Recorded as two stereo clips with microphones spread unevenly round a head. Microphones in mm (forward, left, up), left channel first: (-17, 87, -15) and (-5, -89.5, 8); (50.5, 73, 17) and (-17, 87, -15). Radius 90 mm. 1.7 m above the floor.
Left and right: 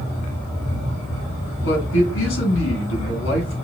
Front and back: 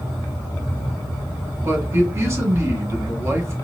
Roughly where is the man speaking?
Left.